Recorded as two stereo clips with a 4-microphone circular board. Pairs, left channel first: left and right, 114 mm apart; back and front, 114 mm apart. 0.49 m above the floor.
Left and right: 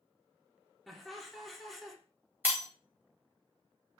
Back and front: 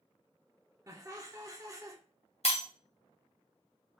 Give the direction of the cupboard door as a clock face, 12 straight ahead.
No cupboard door in this recording.